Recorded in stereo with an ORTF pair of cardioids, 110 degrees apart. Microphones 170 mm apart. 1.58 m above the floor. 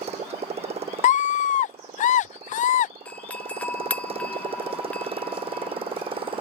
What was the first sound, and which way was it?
A motorcycle, 40° right.